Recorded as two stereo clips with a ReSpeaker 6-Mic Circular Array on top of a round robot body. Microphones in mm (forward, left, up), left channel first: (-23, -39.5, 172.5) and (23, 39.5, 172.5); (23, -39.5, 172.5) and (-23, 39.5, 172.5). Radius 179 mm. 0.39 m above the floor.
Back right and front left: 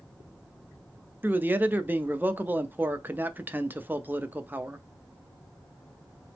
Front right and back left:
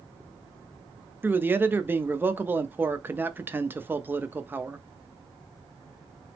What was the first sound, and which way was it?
A man speaking, 95° left.